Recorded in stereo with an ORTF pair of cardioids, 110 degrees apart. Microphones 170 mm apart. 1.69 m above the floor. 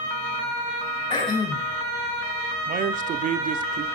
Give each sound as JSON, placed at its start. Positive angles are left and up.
{"t": 1.1, "sound": "throat clearing", "azimuth_deg": 30, "distance_m": 3.5}
{"t": 2.7, "sound": "a man speaking", "azimuth_deg": -50, "distance_m": 0.8}